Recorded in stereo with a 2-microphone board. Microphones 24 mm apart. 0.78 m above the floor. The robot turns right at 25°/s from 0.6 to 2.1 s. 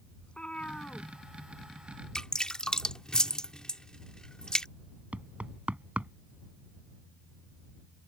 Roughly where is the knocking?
Right.